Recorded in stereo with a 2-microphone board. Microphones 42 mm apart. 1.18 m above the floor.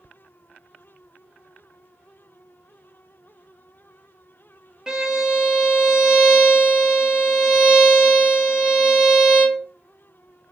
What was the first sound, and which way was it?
A violin, 15° right (ahead or behind).